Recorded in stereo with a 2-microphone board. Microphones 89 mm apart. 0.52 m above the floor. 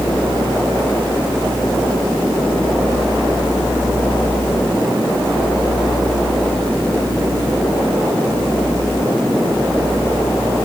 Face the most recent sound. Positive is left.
No sound to turn to.